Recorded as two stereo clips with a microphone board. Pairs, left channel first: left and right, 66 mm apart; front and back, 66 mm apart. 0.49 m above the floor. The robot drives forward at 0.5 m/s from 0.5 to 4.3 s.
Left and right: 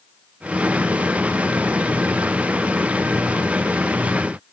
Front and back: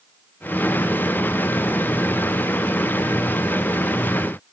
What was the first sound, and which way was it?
Only background noise.